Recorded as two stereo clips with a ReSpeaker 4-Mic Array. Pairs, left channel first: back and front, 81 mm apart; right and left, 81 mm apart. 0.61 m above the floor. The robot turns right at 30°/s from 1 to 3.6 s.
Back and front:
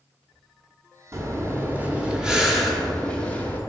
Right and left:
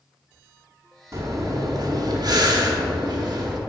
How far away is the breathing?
About 0.8 m.